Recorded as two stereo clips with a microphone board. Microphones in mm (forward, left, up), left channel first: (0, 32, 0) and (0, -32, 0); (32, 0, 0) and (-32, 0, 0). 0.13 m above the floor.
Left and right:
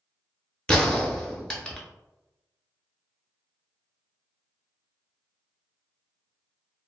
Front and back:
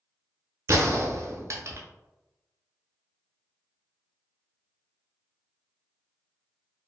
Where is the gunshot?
165° left, 0.5 m.